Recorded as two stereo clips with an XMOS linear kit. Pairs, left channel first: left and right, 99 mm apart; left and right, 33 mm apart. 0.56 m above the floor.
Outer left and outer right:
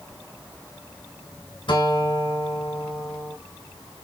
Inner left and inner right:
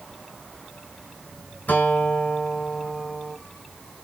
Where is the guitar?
55° left (ahead or behind), 2.5 m.